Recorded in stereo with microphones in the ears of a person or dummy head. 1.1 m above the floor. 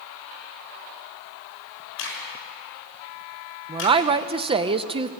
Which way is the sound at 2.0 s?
75° left (ahead or behind).